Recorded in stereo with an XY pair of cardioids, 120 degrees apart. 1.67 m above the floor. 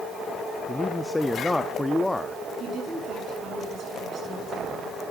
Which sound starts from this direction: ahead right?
A woman speaking, at 2.6 s.